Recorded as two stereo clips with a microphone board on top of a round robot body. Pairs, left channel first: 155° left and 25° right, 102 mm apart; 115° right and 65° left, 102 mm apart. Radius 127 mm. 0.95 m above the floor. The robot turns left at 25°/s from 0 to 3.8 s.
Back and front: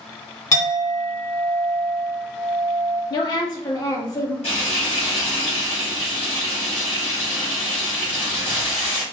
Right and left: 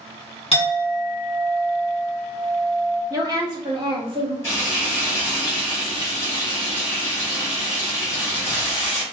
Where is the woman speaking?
120° left, 1.3 m; by 4.3 s 100° left, 1.3 m.